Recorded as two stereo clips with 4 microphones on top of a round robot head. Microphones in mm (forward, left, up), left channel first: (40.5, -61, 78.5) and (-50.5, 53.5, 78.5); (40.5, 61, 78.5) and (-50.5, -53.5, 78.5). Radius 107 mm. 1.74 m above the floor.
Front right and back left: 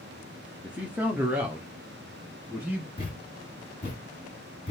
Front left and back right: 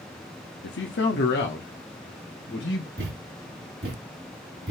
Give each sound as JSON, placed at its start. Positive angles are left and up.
{"t": 0.6, "sound": "a man speaking", "azimuth_deg": 45, "distance_m": 0.7}
{"t": 3.0, "sound": "a thud", "azimuth_deg": -100, "distance_m": 2.5}